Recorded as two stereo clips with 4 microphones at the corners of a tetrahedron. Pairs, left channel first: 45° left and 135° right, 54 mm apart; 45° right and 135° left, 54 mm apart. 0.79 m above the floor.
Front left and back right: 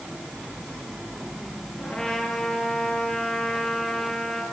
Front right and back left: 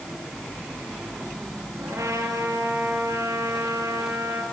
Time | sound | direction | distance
1.8 | a trumpet | 110° left | 7.5 m